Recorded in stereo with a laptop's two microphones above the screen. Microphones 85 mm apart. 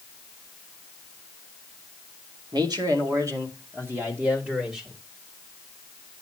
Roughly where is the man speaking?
Right.